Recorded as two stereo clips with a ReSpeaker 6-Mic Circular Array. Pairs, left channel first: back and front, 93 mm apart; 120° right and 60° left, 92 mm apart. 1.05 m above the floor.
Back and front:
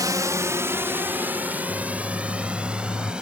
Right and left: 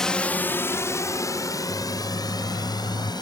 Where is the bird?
100° right.